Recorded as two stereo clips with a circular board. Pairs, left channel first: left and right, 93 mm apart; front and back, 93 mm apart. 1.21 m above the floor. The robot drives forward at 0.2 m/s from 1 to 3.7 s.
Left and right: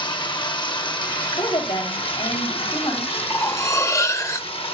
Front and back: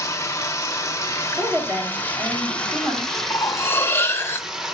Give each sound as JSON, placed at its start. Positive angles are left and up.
{"t": 0.0, "sound": "running water", "azimuth_deg": 60, "distance_m": 0.9}
{"t": 1.4, "sound": "a woman speaking", "azimuth_deg": 110, "distance_m": 3.0}
{"t": 3.3, "sound": "cutlery clinking", "azimuth_deg": 45, "distance_m": 0.5}